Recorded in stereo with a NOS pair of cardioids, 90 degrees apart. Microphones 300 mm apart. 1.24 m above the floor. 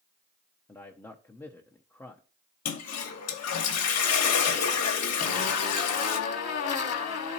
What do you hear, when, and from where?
0.7 s a man speaking: 10° left, 0.7 m
2.6 s a toilet flushing: 55° left, 1.1 m
5.2 s a zipper: 55° left, 1.2 m